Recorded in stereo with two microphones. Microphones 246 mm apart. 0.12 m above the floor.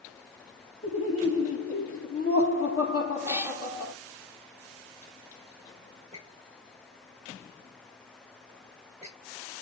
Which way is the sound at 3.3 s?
10° right (ahead or behind).